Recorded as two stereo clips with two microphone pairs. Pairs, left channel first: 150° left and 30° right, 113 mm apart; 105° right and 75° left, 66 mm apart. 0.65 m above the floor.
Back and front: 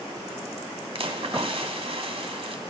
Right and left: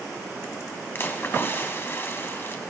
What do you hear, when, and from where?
0.9 s a splash: 55° right, 1.1 m